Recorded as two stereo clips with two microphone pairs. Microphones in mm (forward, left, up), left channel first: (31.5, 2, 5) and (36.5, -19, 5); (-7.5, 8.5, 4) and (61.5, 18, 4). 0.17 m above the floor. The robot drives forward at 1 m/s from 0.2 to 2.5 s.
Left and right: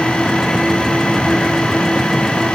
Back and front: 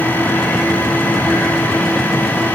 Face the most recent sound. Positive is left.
No sound to turn to.